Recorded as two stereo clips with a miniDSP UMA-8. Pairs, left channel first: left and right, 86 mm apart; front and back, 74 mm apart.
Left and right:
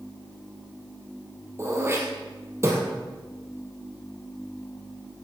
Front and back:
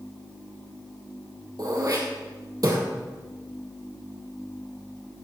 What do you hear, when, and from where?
1.6 s throat clearing: 145° right, 3 m